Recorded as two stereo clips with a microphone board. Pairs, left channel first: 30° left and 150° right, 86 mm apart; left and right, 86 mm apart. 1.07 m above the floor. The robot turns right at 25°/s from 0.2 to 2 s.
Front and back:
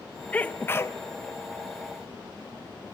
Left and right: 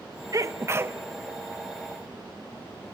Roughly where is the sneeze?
Ahead right.